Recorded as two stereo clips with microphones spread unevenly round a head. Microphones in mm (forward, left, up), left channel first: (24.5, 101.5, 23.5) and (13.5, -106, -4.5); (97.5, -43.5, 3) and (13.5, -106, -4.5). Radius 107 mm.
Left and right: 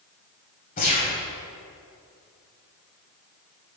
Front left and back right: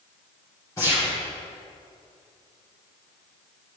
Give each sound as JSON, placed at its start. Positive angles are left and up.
{"t": 0.8, "sound": "a gunshot", "azimuth_deg": 85, "distance_m": 2.0}